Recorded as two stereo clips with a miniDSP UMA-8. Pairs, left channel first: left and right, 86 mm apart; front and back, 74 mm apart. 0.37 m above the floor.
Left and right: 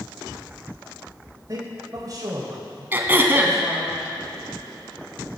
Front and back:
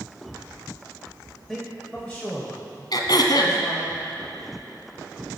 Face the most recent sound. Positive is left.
turn(degrees=-25)